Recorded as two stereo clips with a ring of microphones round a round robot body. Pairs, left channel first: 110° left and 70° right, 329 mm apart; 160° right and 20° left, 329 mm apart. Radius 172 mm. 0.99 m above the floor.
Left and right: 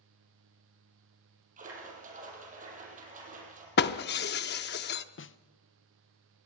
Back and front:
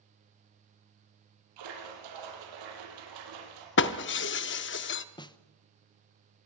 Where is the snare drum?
135° left, 0.8 m.